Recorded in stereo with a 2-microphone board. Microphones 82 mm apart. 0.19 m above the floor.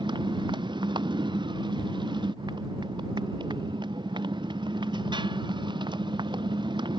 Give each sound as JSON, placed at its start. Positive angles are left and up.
{"t": 0.0, "sound": "a motorcycle", "side_deg": -75}